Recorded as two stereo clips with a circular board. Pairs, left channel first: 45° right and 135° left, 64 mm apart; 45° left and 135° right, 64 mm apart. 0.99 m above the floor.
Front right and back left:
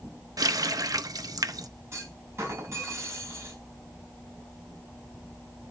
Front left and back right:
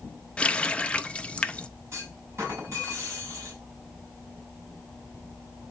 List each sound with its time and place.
0.4 s a running tap: 115° left, 0.5 m
1.9 s a clunk: straight behind, 4 m